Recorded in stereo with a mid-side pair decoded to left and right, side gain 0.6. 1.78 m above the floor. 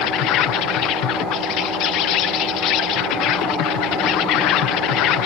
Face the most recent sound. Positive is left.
turn(degrees=70)